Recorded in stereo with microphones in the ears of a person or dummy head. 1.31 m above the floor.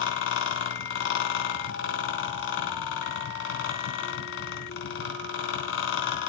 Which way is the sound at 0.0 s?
70° left (ahead or behind).